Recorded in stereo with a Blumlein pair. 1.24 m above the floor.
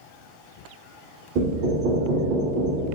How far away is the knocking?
About 0.6 m.